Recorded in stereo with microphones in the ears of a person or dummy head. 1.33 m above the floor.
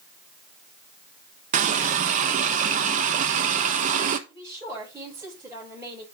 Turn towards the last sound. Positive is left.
turn(degrees=-15)  # may be behind; listen again after turning